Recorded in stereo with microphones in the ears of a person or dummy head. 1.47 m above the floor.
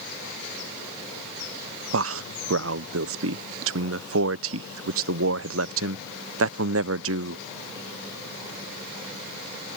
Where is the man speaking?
70° right (ahead or behind).